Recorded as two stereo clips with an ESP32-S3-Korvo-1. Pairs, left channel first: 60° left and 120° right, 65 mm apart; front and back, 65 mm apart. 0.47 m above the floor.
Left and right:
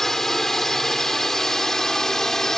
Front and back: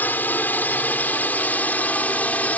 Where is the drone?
20° right; by 2.6 s 15° right.